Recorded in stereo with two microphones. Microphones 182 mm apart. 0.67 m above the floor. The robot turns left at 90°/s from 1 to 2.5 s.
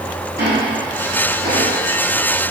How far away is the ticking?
About 4.5 m.